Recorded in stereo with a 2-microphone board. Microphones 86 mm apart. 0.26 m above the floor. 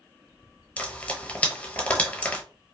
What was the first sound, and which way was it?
Frying, 15° left (ahead or behind).